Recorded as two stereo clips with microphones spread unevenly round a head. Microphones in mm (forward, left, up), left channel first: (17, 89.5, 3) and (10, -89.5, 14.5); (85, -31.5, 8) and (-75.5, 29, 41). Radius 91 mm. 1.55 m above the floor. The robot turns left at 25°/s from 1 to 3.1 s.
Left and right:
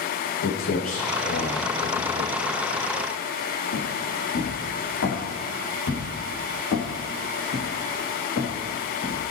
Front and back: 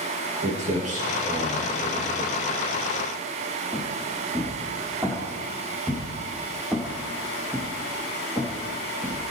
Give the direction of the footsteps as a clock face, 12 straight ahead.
8 o'clock.